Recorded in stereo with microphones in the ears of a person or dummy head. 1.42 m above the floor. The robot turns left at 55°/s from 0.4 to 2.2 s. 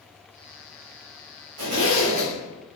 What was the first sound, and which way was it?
A zipper, 115° right.